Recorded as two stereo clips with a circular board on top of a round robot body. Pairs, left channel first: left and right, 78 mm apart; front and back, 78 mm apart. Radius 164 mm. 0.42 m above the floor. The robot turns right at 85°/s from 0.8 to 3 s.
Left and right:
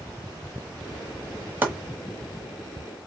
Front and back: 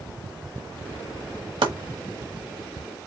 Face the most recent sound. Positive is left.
turn(degrees=-40)